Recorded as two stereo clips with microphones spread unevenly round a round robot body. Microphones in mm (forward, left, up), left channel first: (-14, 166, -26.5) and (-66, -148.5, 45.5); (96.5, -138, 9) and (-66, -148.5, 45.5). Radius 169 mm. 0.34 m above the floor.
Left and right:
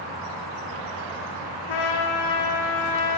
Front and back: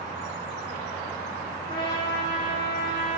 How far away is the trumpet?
About 6 m.